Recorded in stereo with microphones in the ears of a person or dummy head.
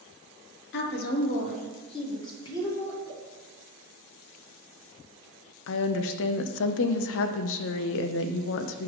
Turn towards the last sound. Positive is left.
turn(degrees=70)  # may be behind; listen again after turning